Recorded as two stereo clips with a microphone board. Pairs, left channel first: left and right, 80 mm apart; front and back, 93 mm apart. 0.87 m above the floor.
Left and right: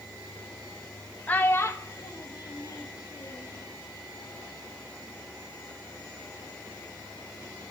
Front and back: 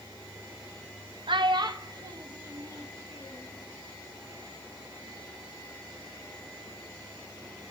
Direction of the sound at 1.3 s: 160° left.